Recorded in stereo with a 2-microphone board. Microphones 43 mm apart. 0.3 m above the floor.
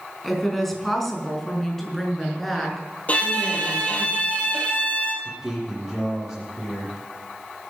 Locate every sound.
0.2 s a woman speaking: 5° left (ahead or behind), 3.5 m; by 4.1 s 10° left (ahead or behind), 5.5 m
3.1 s a violin: 35° left (ahead or behind), 3.5 m
5.2 s a man speaking: centre (ahead or behind), 7 m